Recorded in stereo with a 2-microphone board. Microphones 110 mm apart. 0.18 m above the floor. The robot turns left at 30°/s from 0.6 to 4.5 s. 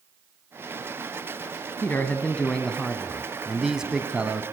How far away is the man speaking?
About 1.5 m.